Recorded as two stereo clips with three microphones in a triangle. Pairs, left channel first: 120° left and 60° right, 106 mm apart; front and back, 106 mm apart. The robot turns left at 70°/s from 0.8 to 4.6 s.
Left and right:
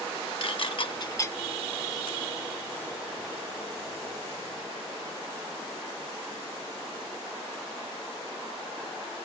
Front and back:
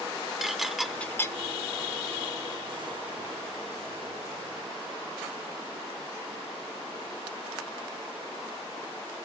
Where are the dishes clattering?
90° left, 0.7 m; by 1.4 s 50° left, 0.7 m.